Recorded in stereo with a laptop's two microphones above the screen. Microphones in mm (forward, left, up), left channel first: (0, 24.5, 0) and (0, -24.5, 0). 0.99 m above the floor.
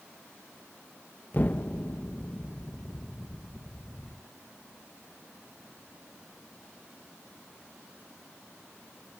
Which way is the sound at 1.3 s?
35° left (ahead or behind).